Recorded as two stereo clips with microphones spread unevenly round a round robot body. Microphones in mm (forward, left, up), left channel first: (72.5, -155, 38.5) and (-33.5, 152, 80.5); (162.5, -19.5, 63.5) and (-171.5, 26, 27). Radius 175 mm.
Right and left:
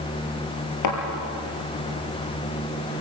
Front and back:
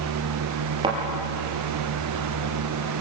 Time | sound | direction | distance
0.8 | a thud | 110° right | 3.5 m